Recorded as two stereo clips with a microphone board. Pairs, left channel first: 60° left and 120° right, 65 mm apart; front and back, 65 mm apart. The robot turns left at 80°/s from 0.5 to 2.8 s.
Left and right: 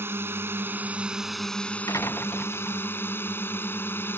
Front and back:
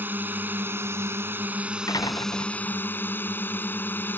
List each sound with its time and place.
0.0 s a drone: 140° right; by 4.2 s 35° left
1.9 s a door slam: 25° left; by 2.9 s 50° right